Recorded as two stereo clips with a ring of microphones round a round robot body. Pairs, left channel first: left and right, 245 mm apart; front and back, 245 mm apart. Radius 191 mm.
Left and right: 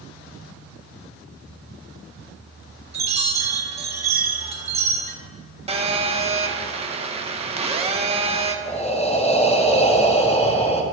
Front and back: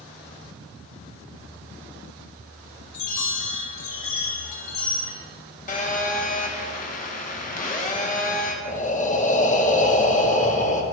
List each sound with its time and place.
2.9 s a chime: 25° right, 1.6 m
5.7 s a phone buzzing: 35° right, 1.1 m
8.7 s breathing: 40° left, 1.1 m